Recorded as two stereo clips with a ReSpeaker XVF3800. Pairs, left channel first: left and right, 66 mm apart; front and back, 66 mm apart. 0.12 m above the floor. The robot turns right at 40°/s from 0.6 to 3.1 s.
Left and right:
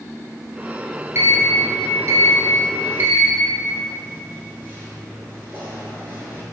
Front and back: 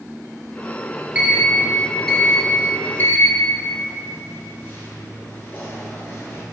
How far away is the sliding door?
About 0.8 m.